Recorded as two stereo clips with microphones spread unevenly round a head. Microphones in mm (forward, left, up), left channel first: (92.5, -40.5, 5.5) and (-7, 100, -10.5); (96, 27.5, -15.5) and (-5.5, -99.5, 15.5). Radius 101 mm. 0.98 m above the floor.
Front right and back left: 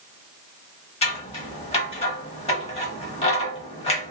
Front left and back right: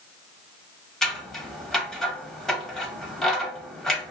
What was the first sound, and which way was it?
Scissors, 50° right.